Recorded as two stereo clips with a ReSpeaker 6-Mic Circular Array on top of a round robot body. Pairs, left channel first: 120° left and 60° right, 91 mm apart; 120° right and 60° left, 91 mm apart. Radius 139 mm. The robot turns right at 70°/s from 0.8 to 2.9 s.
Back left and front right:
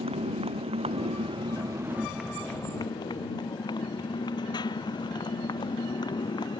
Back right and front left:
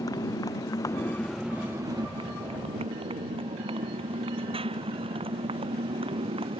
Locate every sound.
0.0 s a motorcycle: 70° right; by 6.6 s 80° left